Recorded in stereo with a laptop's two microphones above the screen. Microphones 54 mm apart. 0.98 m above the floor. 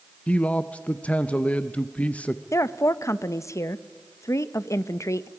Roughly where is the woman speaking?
Left.